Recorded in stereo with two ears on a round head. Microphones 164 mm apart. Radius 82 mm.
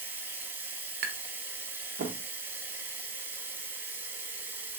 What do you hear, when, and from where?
0.0 s running water: 10° right (ahead or behind), 0.8 m
1.0 s tapping: 60° right (ahead or behind), 0.7 m